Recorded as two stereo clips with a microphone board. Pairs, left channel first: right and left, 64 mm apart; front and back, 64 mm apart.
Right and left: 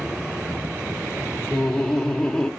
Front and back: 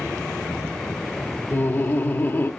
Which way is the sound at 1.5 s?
15° right.